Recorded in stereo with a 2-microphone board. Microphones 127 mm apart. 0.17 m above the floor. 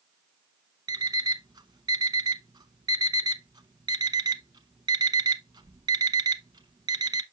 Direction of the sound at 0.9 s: 35° right (ahead or behind).